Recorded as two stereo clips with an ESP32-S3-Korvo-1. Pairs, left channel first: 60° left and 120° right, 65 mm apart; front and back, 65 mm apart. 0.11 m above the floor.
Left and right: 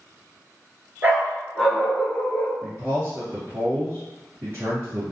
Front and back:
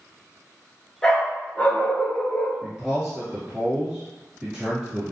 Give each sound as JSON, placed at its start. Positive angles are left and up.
{"t": 1.0, "sound": "a dog barking", "azimuth_deg": -75, "distance_m": 0.8}
{"t": 2.6, "sound": "a man speaking", "azimuth_deg": -105, "distance_m": 1.8}